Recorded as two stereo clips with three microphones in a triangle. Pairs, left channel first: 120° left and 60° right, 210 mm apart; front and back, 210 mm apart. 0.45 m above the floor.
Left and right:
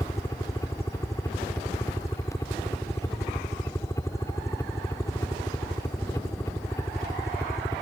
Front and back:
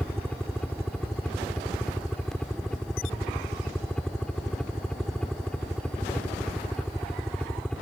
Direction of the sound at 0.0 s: 80° left.